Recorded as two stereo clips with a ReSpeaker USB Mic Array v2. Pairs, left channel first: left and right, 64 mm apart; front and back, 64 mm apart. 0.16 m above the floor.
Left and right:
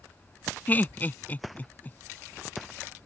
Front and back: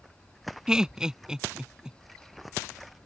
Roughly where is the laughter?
Left.